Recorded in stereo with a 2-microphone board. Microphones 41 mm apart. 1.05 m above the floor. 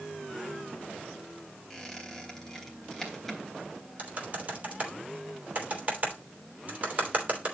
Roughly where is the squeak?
Centre.